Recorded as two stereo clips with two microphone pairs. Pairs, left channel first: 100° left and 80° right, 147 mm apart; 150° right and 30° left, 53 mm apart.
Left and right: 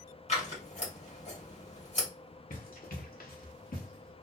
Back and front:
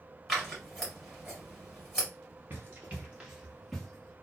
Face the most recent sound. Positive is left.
turn(degrees=130)